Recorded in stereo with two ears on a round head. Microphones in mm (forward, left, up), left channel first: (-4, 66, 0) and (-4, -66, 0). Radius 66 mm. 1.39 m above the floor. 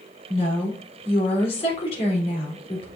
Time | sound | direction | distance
0.3 | a woman speaking | 40° left (ahead or behind) | 3.5 m